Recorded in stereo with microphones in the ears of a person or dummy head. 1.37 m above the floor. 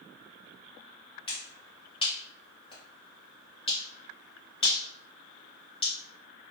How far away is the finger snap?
About 1.0 m.